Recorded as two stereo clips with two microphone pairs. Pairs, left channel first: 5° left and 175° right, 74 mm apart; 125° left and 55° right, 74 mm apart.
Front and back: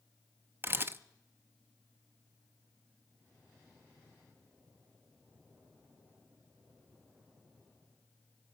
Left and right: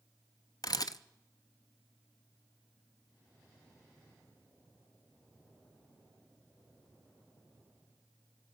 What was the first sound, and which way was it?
A camera shutter, 135° left.